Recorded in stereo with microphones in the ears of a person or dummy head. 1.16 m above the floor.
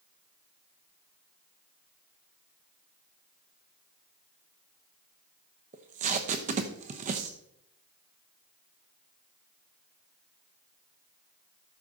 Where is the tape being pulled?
35° right (ahead or behind), 0.8 m.